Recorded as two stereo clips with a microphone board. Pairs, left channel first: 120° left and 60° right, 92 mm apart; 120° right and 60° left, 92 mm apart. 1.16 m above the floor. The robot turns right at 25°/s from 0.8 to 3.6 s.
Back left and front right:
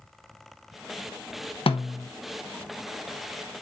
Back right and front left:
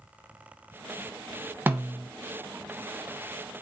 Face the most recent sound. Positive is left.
turn(degrees=180)